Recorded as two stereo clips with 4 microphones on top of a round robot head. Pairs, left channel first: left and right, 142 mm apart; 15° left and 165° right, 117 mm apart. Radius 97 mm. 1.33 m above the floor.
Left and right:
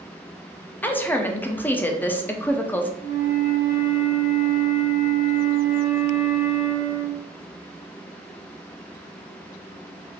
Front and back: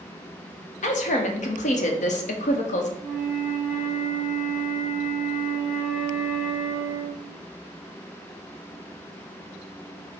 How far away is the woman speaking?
About 0.8 m.